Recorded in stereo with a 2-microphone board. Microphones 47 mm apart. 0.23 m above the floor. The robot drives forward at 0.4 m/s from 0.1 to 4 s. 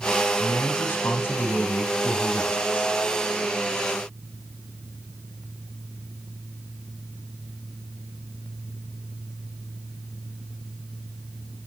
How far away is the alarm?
I don't hear an alarm.